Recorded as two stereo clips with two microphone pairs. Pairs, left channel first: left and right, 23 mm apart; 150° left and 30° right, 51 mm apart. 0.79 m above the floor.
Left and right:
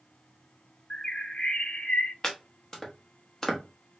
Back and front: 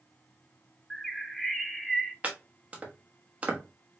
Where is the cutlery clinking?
I don't hear cutlery clinking.